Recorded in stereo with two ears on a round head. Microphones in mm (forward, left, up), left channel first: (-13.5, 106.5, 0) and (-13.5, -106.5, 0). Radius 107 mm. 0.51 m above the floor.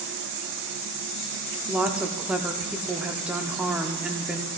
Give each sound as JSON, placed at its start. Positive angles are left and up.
{"t": 1.7, "sound": "a woman speaking", "side_deg": -5, "distance_m": 0.7}